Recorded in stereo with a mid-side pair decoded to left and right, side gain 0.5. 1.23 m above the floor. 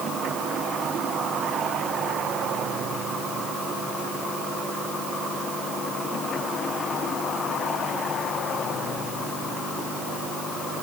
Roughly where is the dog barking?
No dog barking in this recording.